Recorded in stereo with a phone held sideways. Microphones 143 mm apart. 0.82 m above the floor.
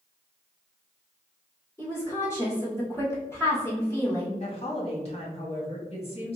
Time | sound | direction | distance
1.8 | a woman speaking | 20° left (ahead or behind) | 1.9 m
4.4 | a woman speaking | 45° left (ahead or behind) | 1.5 m